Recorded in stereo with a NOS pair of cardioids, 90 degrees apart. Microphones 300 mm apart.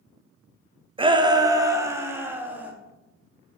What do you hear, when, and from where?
1.0 s a shout: 15° right, 0.8 m; by 2.7 s 5° right, 1.8 m